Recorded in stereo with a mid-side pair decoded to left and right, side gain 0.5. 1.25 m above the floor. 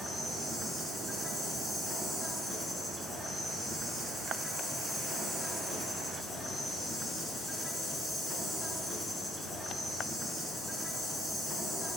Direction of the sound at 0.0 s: 20° left.